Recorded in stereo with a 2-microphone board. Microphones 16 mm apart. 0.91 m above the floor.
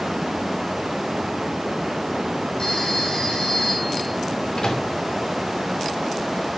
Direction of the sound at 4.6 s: 75° left (ahead or behind).